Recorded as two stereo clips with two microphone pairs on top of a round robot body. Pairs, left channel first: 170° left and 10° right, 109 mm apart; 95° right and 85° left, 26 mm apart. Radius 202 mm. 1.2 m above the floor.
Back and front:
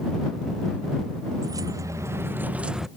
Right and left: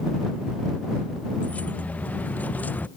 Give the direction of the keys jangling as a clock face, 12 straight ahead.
2 o'clock.